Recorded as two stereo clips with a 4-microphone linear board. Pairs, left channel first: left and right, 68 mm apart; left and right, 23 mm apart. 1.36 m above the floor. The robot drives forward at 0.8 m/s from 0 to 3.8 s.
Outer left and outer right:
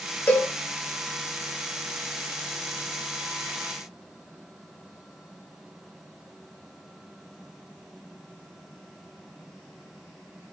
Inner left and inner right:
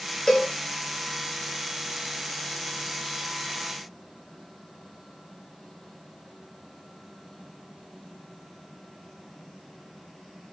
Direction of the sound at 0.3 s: 30° left (ahead or behind).